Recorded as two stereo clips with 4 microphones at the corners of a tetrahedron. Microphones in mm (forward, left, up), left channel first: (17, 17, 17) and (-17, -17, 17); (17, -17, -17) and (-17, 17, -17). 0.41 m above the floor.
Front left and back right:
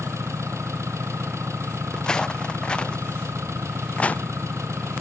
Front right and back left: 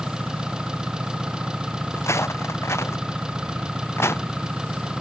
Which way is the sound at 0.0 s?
150° right.